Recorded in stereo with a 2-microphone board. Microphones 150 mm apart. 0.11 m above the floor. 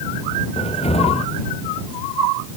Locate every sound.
0.6 s a cupboard door: 45° left (ahead or behind)